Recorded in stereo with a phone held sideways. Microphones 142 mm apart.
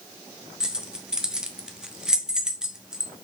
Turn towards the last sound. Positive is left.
turn(degrees=-5)  # may be behind; listen again after turning